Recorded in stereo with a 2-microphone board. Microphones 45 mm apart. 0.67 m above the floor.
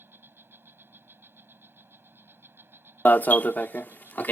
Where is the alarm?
45° left (ahead or behind).